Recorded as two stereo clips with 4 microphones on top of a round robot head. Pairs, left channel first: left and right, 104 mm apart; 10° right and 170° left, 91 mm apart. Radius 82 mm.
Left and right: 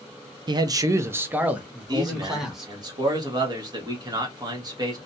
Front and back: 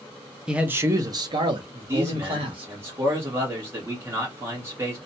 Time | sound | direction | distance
0.5 | a man speaking | 110° right | 0.5 m
1.9 | a man speaking | 135° right | 1.2 m